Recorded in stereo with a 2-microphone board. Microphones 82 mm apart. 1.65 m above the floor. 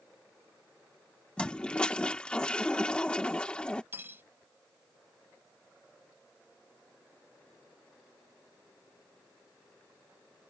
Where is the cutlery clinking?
25° right (ahead or behind).